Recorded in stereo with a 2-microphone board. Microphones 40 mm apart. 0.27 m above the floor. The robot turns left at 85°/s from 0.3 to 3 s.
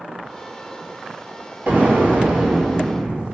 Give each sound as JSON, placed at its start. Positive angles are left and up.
{"t": 1.7, "sound": "an explosion", "azimuth_deg": -65, "distance_m": 1.5}